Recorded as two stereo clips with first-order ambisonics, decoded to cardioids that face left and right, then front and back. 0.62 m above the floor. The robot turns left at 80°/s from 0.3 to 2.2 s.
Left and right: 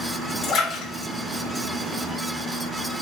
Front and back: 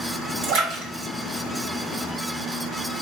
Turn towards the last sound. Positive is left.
turn(degrees=15)